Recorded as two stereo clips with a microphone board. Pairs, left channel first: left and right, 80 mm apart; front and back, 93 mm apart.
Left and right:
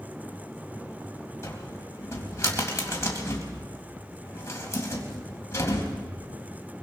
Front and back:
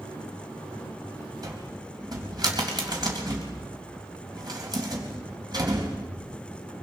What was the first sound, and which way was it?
A cupboard door, 140° left.